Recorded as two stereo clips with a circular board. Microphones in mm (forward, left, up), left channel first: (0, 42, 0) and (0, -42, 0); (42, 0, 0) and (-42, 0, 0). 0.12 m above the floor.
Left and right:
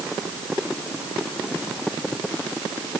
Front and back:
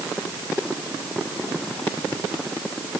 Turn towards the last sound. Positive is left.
No sound to turn to.